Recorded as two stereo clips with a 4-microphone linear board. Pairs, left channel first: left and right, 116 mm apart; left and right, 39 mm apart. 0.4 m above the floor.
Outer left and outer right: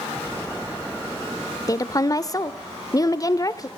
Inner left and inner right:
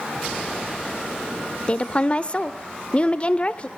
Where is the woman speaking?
30° left (ahead or behind), 0.8 m.